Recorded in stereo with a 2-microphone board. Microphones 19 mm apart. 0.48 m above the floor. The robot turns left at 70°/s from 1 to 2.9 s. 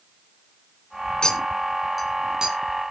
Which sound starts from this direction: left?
A clink, at 1.2 s.